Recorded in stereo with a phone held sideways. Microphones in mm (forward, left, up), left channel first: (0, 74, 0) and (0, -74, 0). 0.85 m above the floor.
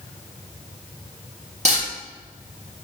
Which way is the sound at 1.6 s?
50° right (ahead or behind).